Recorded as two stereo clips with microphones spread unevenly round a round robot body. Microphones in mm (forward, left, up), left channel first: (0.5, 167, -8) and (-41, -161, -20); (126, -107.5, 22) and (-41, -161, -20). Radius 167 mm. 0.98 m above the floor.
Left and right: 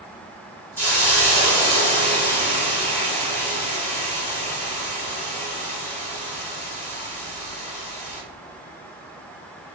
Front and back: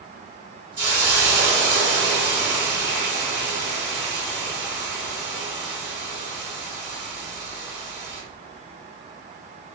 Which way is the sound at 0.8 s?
165° left.